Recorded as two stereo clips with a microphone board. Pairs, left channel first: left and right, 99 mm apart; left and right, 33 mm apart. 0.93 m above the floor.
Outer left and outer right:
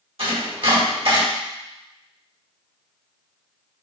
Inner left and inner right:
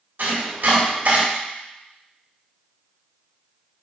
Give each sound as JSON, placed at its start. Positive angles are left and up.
{"t": 0.2, "sound": "chopping", "side_deg": -75, "distance_m": 3.5}